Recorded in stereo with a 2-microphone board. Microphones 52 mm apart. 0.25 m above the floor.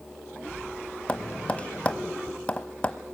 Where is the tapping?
20° left (ahead or behind), 1.1 m.